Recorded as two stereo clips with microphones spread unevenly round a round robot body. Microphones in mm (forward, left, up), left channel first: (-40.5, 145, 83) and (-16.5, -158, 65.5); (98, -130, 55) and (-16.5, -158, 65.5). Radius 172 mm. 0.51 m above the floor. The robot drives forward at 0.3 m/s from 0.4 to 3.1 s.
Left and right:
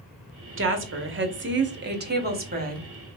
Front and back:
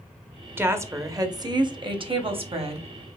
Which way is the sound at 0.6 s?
95° right.